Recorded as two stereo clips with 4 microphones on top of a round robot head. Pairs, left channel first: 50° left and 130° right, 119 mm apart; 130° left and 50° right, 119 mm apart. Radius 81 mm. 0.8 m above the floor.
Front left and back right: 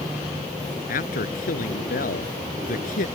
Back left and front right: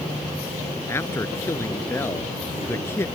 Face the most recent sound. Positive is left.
turn(degrees=55)